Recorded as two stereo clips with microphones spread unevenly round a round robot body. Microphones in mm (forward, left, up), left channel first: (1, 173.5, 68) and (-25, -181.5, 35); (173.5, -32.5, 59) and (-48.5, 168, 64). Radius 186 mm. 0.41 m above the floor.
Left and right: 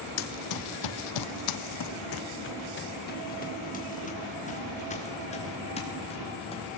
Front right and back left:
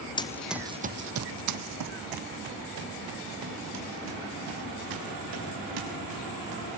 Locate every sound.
0.2 s running footsteps: 35° left, 1.1 m; by 6.8 s 160° left, 6 m